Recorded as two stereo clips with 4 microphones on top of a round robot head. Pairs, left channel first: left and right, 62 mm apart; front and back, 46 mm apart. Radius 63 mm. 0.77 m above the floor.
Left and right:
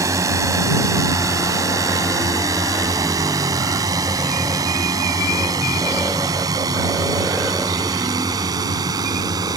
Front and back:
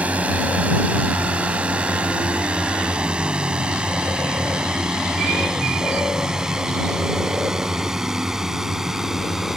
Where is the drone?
120° right; by 9.6 s 100° right.